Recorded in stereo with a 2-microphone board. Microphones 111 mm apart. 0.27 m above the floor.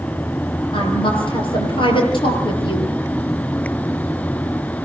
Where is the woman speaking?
50° left (ahead or behind), 6.5 m.